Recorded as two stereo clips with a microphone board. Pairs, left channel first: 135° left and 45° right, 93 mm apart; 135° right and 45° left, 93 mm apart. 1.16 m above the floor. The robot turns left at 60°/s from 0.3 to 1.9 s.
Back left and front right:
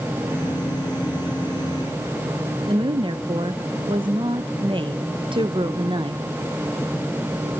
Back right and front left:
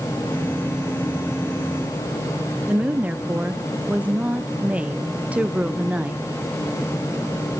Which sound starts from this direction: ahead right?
A woman speaking, at 2.7 s.